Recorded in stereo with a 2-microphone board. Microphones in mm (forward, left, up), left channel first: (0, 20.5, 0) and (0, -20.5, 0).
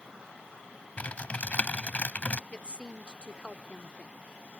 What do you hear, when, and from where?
1.0 s typing on a keyboard: 40° left (ahead or behind)
2.5 s a woman speaking: 30° left (ahead or behind)